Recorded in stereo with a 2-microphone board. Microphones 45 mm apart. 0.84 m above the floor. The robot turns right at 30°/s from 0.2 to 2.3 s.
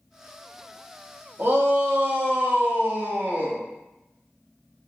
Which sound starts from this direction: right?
A shout, at 1.4 s.